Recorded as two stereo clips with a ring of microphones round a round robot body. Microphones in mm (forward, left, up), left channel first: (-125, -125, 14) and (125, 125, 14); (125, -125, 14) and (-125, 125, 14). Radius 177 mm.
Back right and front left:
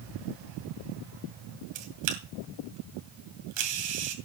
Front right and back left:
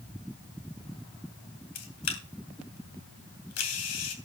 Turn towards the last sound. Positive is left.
turn(degrees=5)